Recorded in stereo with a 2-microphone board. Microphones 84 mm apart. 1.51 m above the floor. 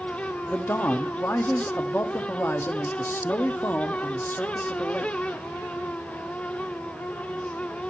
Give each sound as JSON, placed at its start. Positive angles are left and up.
{"t": 0.5, "sound": "a man speaking", "side_deg": 25, "distance_m": 0.8}